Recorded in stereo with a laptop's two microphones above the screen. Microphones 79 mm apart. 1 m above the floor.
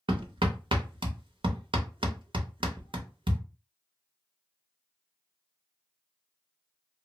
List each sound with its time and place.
0.1 s hammering: 75° right (ahead or behind), 0.6 m